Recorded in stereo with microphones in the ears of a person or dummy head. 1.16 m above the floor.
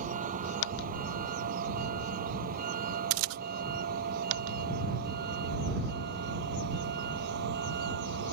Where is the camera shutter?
85° right.